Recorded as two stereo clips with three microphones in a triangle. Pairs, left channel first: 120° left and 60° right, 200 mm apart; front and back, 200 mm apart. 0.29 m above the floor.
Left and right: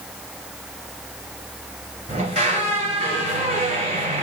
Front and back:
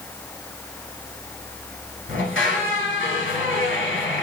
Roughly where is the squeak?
Ahead.